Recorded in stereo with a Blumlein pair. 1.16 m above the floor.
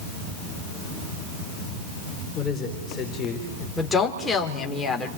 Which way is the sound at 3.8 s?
15° left.